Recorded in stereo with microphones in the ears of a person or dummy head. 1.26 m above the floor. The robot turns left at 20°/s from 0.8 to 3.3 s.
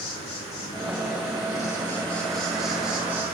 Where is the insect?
35° left, 3.5 m; by 3.4 s 15° right, 3.5 m.